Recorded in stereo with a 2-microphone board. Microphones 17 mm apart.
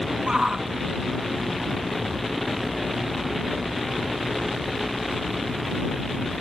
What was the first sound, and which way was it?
A shout, 80° right.